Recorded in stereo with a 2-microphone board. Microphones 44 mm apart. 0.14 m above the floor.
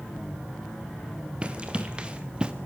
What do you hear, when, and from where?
1.4 s running footsteps: 25° right (ahead or behind), 2 m; by 2.5 s 20° right (ahead or behind), 1.6 m